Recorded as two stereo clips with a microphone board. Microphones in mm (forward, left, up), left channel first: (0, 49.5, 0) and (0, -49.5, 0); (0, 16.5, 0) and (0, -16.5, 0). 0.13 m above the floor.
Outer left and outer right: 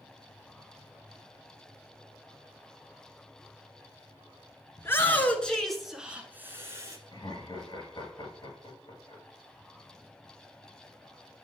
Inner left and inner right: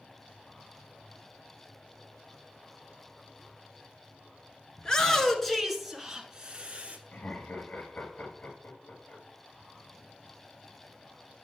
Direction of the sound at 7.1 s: 50° left (ahead or behind).